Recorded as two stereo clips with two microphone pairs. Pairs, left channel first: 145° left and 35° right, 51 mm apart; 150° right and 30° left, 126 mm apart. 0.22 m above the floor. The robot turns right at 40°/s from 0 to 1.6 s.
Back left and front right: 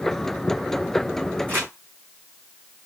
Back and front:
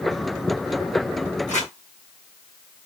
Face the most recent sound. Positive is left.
turn(degrees=-85)